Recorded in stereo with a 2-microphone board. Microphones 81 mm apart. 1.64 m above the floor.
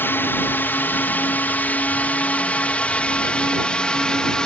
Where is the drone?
25° left (ahead or behind); by 4.5 s 10° left (ahead or behind).